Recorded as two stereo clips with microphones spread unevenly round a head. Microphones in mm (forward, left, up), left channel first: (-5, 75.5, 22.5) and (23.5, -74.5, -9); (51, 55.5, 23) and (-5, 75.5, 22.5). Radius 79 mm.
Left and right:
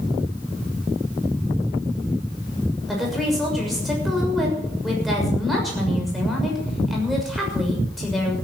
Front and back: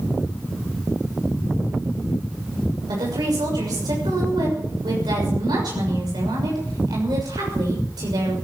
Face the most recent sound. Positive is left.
turn(degrees=-170)